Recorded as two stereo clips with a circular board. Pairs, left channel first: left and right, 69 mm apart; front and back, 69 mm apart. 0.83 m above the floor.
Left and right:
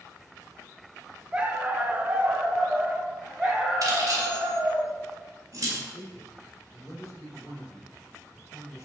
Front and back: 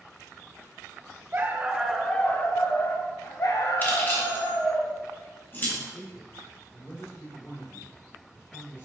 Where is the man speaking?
45° left, 1.6 m.